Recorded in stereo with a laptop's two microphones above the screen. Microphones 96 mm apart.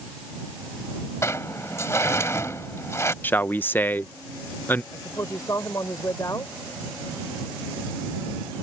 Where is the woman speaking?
35° left (ahead or behind).